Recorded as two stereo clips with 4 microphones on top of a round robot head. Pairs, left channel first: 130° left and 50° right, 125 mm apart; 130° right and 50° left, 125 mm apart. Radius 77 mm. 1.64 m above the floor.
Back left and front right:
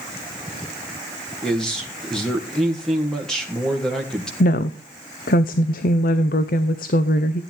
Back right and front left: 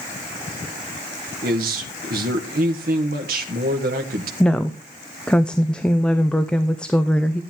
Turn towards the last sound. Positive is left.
turn(degrees=145)